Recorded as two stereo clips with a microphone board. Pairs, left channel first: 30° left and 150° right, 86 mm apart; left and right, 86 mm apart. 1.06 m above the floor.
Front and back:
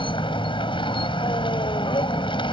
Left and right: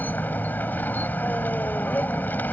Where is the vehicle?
20° left.